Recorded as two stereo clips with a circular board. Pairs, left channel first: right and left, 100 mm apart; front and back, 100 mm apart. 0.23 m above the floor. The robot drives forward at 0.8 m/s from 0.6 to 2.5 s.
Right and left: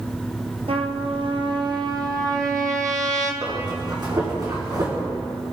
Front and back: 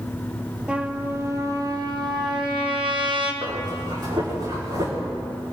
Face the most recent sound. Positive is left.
turn(degrees=135)